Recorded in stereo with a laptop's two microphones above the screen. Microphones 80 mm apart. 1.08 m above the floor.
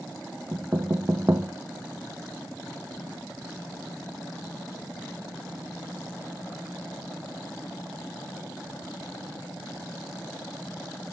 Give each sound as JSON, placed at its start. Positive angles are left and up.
{"t": 0.5, "sound": "knocking", "side_deg": -35, "distance_m": 0.7}